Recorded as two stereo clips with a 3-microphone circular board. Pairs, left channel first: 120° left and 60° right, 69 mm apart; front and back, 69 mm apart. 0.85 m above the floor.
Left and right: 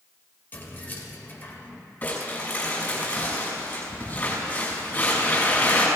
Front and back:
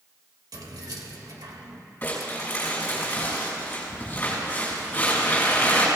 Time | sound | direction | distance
0.5 | keys jangling | 175° left | 1.9 m
2.0 | crumpling | 60° left | 6 m